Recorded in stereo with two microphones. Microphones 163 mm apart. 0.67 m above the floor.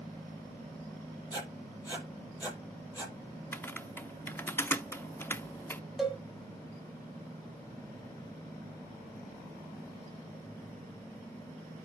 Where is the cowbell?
5° right (ahead or behind), 1.6 m.